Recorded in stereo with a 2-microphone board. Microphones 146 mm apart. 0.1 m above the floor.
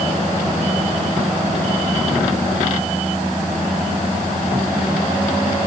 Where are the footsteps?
I don't hear footsteps.